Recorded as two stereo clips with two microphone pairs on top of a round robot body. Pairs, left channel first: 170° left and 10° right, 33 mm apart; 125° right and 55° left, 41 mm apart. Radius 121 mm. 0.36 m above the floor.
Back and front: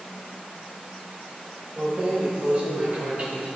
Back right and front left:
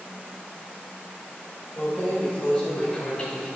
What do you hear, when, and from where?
1.8 s keys jangling: 75° right, 1.6 m; by 3.5 s 60° right, 4 m